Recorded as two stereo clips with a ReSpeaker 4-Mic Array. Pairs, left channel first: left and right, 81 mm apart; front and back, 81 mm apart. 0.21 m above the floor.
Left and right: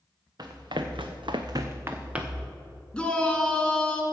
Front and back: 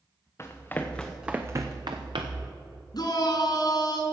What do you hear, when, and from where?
0.4 s running footsteps: 55° right, 1.6 m; by 2.5 s 175° right, 1.7 m
2.9 s a shout: 15° left, 2.5 m